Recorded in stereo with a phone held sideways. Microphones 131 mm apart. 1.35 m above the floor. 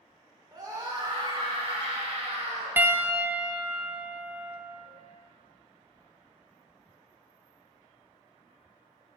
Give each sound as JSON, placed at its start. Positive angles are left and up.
{"t": 0.5, "sound": "a scream", "side_deg": -30, "distance_m": 3.5}
{"t": 2.8, "sound": "a piano", "side_deg": -15, "distance_m": 0.7}